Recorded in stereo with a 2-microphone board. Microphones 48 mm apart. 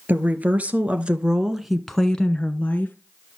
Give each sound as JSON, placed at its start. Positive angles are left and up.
{"t": 0.1, "sound": "a woman speaking", "side_deg": -40, "distance_m": 1.9}